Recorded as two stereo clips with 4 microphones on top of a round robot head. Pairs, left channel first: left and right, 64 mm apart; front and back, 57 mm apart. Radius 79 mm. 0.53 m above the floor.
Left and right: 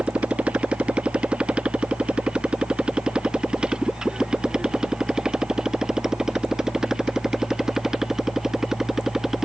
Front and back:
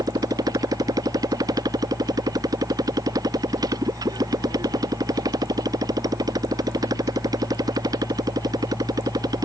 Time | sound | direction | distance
0.0 | a motorcycle | 165° right | ?